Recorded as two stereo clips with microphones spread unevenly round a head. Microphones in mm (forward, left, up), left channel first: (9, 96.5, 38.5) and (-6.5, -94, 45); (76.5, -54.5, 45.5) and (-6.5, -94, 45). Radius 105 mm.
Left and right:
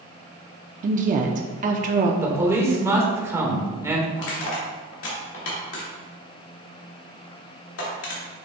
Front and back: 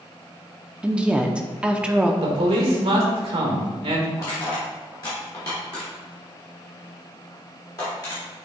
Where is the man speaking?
170° right, 1.7 m.